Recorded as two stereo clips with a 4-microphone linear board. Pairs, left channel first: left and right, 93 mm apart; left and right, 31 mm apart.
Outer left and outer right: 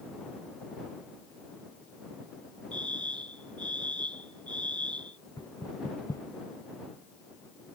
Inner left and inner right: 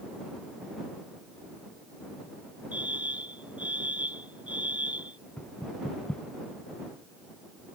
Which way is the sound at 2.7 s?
55° right (ahead or behind).